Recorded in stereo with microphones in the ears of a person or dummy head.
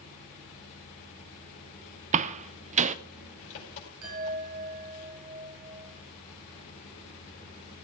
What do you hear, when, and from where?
0.0 s an engine running: 40° left (ahead or behind), 5 m
2.1 s a door slam: 40° right (ahead or behind), 0.7 m
4.0 s a chime: 80° right, 7 m